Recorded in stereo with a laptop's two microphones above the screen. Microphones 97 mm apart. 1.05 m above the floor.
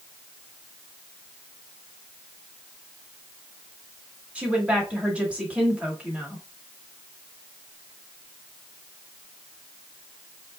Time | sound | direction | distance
4.3 | a woman speaking | 10° right (ahead or behind) | 2.5 m